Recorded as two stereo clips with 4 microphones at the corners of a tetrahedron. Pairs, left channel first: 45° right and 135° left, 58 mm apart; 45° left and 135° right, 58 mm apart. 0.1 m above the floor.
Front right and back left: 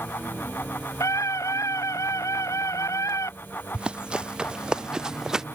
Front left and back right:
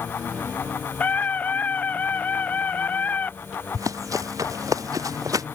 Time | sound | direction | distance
1.0 | a scream | 20° right | ?
3.7 | running footsteps | 150° right | ?